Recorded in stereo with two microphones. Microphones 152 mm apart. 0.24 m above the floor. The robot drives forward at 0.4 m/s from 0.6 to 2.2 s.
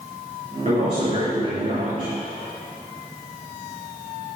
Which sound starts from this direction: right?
A man speaking, at 0.7 s.